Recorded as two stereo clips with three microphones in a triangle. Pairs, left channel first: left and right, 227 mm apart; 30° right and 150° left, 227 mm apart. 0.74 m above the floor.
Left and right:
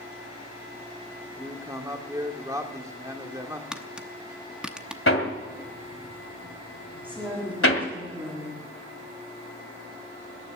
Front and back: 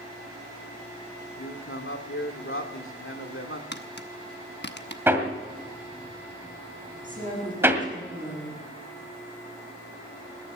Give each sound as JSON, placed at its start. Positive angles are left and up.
{"t": 1.4, "sound": "a man speaking", "azimuth_deg": -15, "distance_m": 1.6}
{"t": 3.7, "sound": "tapping", "azimuth_deg": -5, "distance_m": 0.9}
{"t": 5.1, "sound": "hammering", "azimuth_deg": 70, "distance_m": 1.9}
{"t": 7.0, "sound": "a woman speaking", "azimuth_deg": -155, "distance_m": 6.5}